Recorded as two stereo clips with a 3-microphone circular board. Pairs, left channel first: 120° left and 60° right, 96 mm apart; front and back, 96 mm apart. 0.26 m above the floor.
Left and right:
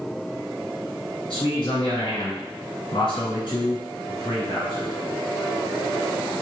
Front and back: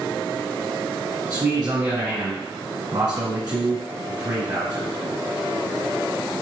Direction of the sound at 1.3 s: 150° left.